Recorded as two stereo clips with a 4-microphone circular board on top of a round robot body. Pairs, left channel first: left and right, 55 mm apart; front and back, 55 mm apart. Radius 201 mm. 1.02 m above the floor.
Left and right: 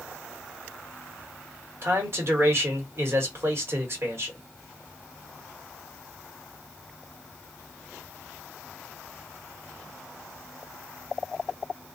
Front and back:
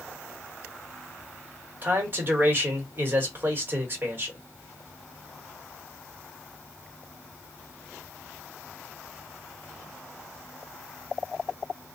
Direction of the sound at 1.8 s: 130° right.